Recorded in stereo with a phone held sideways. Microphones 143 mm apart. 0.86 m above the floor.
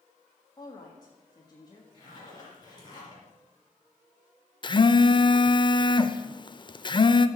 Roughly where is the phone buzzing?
Left.